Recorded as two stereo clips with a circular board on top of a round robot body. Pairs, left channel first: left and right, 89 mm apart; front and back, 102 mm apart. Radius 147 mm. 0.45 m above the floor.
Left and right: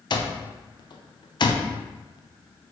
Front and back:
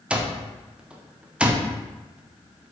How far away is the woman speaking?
I don't hear a woman speaking.